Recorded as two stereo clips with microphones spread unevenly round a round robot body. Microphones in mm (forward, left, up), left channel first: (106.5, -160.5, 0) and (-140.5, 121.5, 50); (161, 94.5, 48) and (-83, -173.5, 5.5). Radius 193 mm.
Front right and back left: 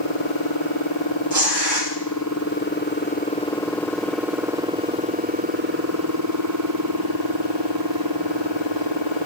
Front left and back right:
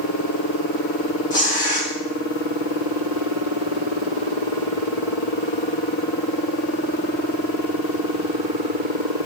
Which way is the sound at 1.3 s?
75° left.